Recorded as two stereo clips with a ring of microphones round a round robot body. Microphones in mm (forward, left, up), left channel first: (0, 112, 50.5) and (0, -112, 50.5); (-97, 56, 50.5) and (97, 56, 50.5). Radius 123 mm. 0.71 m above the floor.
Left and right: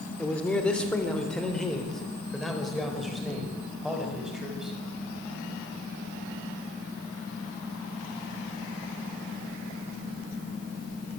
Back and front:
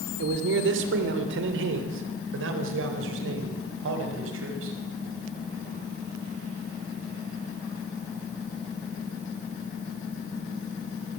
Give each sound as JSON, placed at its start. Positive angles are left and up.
{"t": 0.2, "sound": "a man speaking", "azimuth_deg": 5, "distance_m": 2.5}